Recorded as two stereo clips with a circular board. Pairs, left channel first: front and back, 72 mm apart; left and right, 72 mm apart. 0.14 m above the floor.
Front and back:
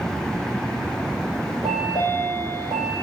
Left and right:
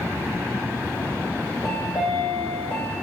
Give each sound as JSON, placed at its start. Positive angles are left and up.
{"t": 1.6, "sound": "a chime", "azimuth_deg": -175, "distance_m": 1.9}